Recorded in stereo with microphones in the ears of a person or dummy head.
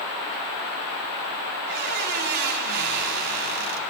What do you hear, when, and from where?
1.6 s a squeak: 40° right (ahead or behind), 1.0 m